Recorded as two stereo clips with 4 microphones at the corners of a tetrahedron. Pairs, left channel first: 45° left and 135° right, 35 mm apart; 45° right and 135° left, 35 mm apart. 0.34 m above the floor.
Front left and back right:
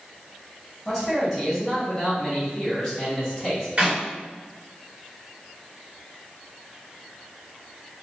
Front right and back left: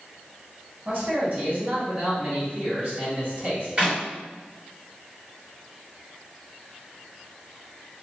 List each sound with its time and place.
0.8 s a man speaking: 130° left, 1.6 m
3.8 s a clap: 175° right, 1.7 m